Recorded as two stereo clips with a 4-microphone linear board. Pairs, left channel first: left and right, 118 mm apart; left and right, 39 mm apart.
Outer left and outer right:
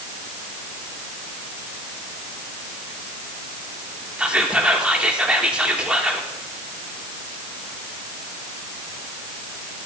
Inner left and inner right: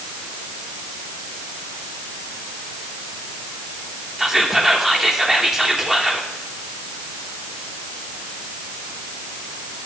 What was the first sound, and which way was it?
Whispering, 10° right (ahead or behind).